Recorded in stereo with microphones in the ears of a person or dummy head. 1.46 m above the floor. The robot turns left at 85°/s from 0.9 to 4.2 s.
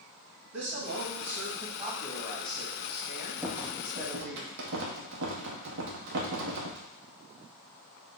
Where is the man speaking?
100° right, 2 m; by 4.4 s 20° right, 2 m.